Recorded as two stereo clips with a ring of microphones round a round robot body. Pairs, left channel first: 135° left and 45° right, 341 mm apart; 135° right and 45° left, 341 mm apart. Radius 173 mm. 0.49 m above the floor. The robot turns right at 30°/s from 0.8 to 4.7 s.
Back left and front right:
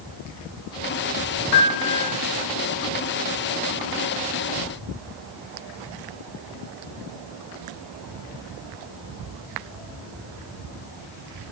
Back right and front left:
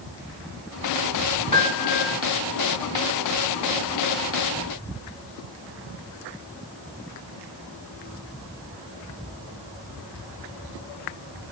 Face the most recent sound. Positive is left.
turn(degrees=-155)